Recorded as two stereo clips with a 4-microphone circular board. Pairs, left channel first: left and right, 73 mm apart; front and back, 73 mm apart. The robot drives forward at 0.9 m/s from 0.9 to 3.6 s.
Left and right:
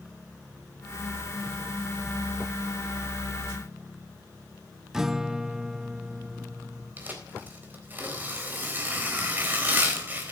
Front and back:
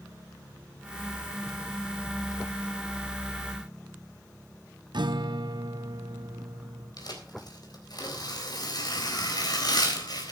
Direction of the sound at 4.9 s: 175° right.